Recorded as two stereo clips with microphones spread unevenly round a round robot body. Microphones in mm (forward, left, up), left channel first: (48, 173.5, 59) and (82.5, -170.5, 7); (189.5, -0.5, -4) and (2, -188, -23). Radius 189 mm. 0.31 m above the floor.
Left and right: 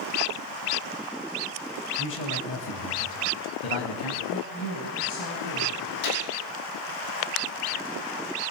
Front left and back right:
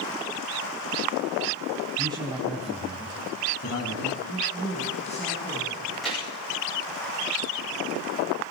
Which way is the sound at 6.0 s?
135° left.